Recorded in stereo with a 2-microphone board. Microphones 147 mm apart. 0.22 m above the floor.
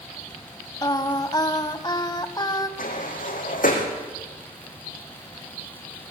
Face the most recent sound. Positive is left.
turn(degrees=70)  # may be behind; listen again after turning